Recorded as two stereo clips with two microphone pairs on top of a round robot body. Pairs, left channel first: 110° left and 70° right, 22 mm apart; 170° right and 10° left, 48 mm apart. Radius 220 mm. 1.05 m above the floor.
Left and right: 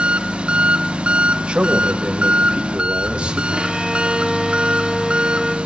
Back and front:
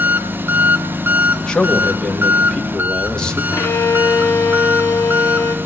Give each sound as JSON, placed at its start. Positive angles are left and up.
{"t": 0.0, "sound": "an engine running", "azimuth_deg": -35, "distance_m": 0.7}
{"t": 1.4, "sound": "a man speaking", "azimuth_deg": -95, "distance_m": 2.0}
{"t": 3.5, "sound": "a violin", "azimuth_deg": -140, "distance_m": 1.0}